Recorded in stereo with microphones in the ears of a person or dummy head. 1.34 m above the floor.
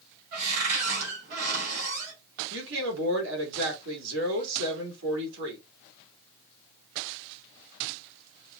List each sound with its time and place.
0.3 s a cupboard door: 50° right (ahead or behind), 4.5 m
2.5 s a woman speaking: 65° right (ahead or behind), 3 m